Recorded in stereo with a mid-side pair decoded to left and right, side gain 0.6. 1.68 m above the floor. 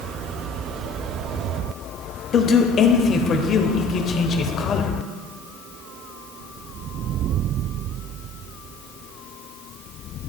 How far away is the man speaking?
About 1.0 m.